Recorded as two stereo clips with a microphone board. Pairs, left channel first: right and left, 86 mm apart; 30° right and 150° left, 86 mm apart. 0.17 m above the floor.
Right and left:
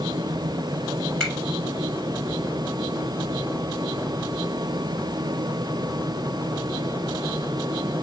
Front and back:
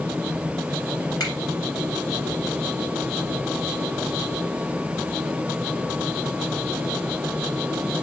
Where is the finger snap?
10° right, 1.9 m.